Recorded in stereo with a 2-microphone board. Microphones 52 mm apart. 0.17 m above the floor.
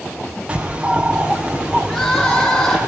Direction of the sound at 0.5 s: 20° right (ahead or behind).